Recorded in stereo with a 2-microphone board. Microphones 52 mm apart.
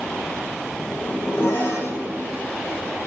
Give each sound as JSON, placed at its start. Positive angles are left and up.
{"t": 0.8, "sound": "a zipper", "side_deg": 45, "distance_m": 3.0}